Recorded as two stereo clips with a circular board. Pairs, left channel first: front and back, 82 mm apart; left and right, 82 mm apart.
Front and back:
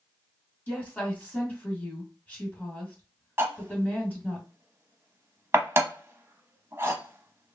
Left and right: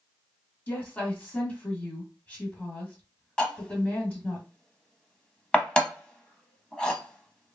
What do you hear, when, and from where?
0.7 s a woman speaking: 45° left, 1.5 m
3.4 s cutlery clinking: 160° left, 0.7 m